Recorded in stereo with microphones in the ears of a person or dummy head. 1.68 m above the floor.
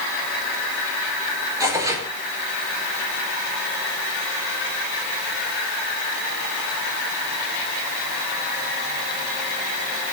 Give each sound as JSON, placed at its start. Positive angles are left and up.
{"t": 1.6, "sound": "tearing paper", "side_deg": -20, "distance_m": 4.0}